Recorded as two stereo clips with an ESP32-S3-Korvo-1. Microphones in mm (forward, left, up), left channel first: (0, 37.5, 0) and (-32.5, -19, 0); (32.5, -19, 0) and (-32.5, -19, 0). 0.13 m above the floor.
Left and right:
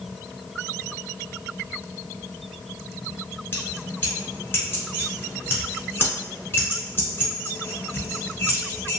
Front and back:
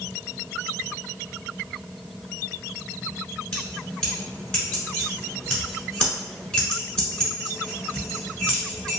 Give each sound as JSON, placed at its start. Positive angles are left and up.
{"t": 3.5, "sound": "keys jangling", "azimuth_deg": 65, "distance_m": 1.2}